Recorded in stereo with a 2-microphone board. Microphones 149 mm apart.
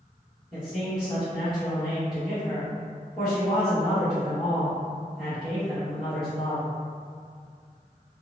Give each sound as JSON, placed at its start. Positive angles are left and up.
{"t": 0.5, "sound": "a man speaking", "side_deg": -5, "distance_m": 1.3}